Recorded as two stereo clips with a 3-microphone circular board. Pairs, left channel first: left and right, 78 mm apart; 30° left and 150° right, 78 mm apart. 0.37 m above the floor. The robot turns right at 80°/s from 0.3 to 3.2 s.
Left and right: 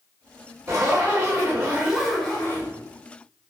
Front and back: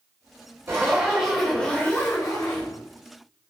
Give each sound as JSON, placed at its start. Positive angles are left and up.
{"t": 0.7, "sound": "a zipper", "azimuth_deg": -115, "distance_m": 1.7}